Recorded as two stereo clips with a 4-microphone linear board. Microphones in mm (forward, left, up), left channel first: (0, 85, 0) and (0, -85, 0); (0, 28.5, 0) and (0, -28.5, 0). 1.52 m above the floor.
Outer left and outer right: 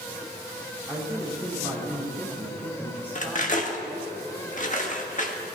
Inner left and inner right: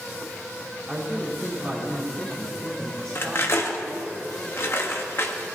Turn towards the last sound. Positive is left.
turn(degrees=50)  # may be behind; listen again after turning